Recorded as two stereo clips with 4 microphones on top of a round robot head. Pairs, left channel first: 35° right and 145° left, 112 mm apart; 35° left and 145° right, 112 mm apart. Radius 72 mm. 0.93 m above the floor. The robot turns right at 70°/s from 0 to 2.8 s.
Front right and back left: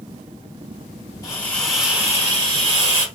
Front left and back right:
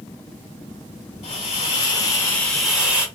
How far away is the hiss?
About 1.6 m.